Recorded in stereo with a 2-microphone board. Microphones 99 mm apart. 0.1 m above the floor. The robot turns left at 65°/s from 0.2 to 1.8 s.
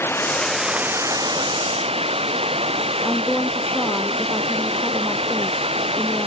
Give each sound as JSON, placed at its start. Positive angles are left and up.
{"t": 0.0, "sound": "running water", "azimuth_deg": 25}
{"t": 3.0, "sound": "a woman speaking", "side_deg": -5}